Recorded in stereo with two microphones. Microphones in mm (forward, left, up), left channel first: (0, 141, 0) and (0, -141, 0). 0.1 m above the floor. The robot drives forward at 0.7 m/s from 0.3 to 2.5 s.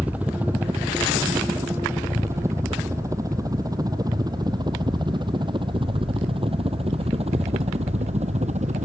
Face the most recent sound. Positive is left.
turn(degrees=-25)  # may be behind; listen again after turning